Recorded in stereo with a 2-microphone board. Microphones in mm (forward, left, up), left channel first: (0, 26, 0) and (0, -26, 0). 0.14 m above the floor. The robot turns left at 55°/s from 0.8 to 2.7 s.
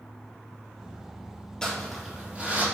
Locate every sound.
1.6 s crumpling: 15° left (ahead or behind), 3 m; by 2.6 s 35° right (ahead or behind), 3 m